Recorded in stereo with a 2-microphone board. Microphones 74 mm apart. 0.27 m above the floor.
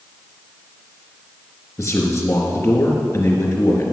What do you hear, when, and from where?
1.8 s a man speaking: 45° left (ahead or behind), 3.5 m